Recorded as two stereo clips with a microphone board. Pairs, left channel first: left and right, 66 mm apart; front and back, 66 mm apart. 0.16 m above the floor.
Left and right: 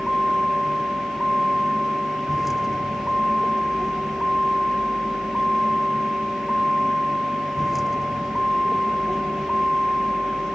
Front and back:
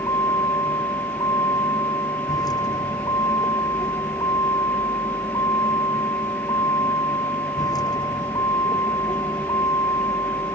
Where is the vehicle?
5° right.